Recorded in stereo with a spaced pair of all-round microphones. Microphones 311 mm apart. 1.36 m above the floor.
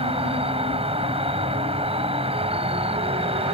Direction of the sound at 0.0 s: 15° right (ahead or behind).